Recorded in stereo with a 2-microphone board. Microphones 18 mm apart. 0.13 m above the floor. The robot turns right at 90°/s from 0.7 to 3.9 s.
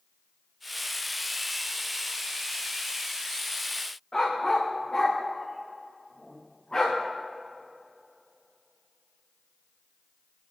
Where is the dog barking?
35° left (ahead or behind), 3 m.